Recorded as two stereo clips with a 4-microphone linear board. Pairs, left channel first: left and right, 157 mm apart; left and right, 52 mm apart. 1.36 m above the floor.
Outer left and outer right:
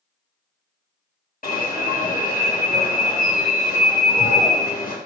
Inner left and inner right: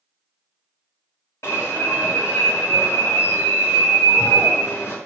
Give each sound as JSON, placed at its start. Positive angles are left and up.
{"t": 1.4, "sound": "an alarm", "side_deg": 65, "distance_m": 1.8}